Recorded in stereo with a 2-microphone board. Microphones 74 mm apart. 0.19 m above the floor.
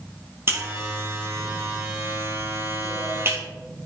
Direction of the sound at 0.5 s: 35° right (ahead or behind).